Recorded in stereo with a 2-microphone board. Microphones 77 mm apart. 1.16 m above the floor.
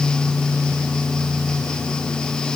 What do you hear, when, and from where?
Only background noise.